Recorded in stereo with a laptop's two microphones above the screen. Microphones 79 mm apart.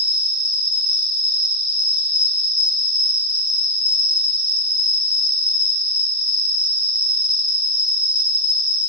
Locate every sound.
0.0 s an insect: 65° right (ahead or behind), 0.8 m